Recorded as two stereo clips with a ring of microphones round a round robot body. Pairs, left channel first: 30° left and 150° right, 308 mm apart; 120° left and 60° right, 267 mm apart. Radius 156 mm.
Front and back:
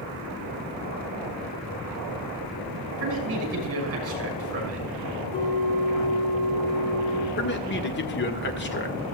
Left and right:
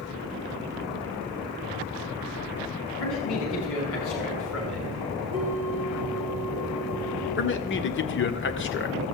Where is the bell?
20° left, 5.5 m.